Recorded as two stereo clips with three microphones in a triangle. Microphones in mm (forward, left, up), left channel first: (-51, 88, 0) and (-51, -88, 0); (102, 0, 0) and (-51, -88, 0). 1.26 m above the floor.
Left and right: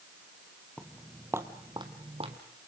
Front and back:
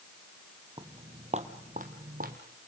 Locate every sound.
0.8 s footsteps: 170° left, 1.5 m; by 2.4 s 135° right, 2 m